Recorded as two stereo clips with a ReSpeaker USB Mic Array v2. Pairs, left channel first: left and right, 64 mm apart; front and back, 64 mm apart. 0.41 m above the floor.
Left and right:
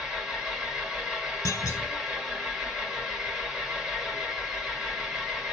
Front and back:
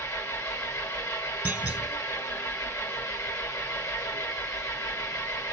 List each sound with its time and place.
0.0 s an engine running: 10° right, 1.5 m
1.4 s a clunk: 115° left, 1.2 m